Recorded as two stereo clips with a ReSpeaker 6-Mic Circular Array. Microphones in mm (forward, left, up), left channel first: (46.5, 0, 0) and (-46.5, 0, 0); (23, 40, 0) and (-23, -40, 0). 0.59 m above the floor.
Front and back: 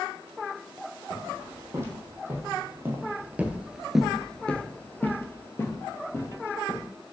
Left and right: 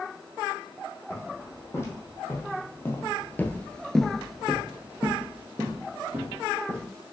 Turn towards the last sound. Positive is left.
turn(degrees=-60)